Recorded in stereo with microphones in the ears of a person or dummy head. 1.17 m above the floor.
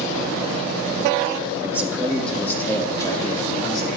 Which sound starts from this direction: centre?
A man speaking, at 1.6 s.